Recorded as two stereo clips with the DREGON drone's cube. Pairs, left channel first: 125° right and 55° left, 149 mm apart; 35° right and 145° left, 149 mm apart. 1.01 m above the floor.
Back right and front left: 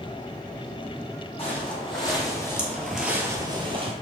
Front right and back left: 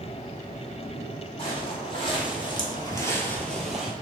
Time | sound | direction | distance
1.4 | footsteps | 80° right | 2 m